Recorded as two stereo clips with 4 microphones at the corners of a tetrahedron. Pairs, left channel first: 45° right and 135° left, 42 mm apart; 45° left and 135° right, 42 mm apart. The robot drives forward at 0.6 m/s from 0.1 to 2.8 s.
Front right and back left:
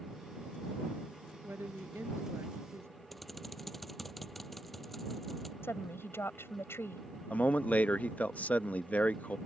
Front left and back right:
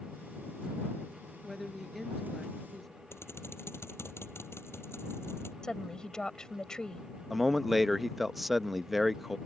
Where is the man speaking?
50° right.